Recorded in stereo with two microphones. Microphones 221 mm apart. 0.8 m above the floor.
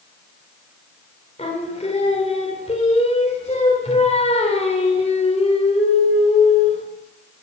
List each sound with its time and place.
1.4 s singing: 30° left (ahead or behind), 2.5 m